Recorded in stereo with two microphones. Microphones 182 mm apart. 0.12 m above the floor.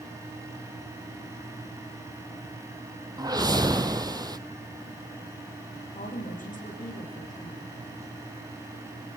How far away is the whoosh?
About 0.8 m.